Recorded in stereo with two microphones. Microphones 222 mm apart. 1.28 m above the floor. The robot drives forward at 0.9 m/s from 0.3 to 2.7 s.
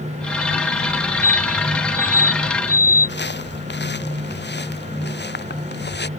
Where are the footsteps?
50° left (ahead or behind).